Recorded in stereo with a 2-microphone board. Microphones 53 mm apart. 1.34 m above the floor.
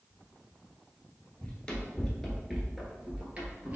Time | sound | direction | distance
1.4 | running footsteps | 20° left (ahead or behind) | 1.4 m